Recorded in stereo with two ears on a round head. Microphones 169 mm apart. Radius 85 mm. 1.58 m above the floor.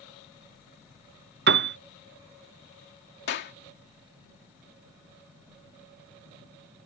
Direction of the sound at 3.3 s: 60° left (ahead or behind).